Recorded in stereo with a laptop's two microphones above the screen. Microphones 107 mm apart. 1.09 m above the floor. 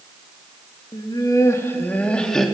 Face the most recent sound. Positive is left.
turn(degrees=0)  # may be behind; listen again after turning